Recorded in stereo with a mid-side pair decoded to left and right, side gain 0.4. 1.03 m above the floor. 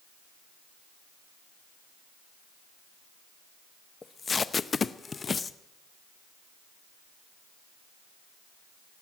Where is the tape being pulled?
40° left, 0.7 m.